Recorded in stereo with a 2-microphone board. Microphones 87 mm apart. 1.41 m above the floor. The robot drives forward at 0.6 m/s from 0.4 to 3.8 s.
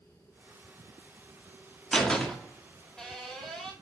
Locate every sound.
1.9 s a door slam: 10° left (ahead or behind), 1.9 m; by 3.7 s 5° left (ahead or behind), 3 m